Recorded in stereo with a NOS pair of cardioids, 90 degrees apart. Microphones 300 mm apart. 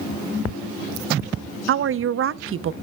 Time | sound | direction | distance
1.7 | a woman speaking | 45° right | 0.6 m